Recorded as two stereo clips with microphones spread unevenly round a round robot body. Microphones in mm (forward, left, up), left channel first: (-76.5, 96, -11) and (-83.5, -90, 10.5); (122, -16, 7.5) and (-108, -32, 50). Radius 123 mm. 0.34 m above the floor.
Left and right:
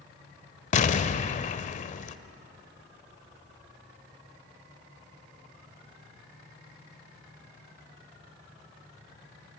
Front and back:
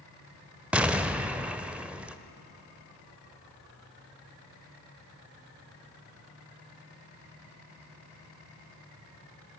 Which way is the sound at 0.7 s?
90° left.